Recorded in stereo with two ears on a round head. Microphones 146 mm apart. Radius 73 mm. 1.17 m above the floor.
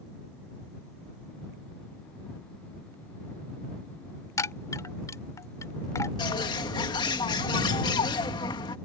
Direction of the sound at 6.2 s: 25° left (ahead or behind).